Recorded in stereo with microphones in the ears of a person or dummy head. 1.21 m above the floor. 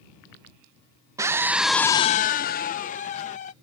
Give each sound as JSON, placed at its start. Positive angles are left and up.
{"t": 1.2, "sound": "a scream", "side_deg": -20}